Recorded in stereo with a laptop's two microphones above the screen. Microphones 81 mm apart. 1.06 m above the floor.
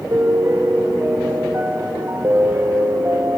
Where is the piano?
40° right (ahead or behind), 1.8 m.